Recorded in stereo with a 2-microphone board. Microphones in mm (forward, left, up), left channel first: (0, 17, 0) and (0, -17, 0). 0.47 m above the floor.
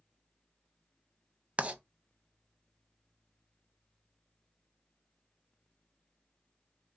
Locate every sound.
1.6 s writing: 35° right (ahead or behind), 0.5 m